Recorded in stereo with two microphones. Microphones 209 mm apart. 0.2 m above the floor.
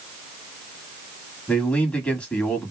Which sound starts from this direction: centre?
A man speaking, at 1.5 s.